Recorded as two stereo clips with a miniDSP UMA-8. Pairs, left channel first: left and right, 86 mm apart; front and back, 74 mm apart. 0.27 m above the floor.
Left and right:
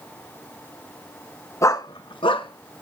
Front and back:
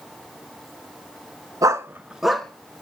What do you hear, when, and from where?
1.6 s a dog barking: 145° left, 0.9 m; by 2.8 s 70° left, 1.5 m